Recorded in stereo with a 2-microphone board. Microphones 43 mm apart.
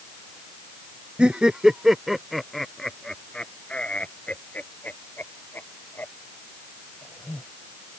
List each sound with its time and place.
1.2 s laughter: 20° right (ahead or behind); by 7.4 s 55° left (ahead or behind)